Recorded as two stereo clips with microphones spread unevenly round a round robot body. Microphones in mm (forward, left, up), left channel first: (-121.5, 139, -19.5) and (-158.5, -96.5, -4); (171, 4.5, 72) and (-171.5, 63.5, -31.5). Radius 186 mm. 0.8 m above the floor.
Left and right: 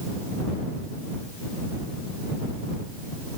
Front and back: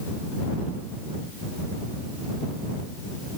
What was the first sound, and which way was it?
Only background noise.